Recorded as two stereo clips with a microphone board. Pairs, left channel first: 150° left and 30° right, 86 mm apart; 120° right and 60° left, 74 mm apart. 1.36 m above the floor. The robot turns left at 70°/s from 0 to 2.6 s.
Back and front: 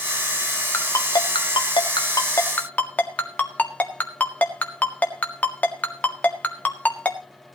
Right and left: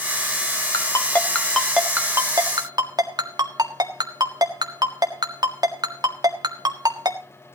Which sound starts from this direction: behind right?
A ringtone, at 0.7 s.